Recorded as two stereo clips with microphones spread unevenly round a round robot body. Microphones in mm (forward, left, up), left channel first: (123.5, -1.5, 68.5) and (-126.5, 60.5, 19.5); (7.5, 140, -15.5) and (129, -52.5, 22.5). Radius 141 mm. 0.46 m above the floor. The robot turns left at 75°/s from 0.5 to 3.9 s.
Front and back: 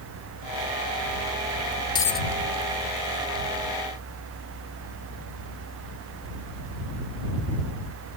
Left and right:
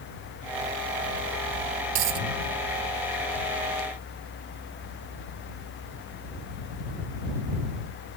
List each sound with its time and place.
1.9 s a dropped coin: 85° right; by 2.3 s 110° right